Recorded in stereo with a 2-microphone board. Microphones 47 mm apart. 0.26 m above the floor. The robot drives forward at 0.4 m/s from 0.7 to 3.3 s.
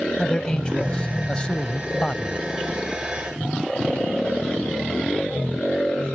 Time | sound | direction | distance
0.2 | a man speaking | 20° left (ahead or behind) | ?